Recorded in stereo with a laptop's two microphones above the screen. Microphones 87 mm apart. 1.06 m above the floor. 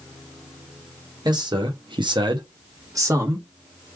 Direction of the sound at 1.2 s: 55° right (ahead or behind).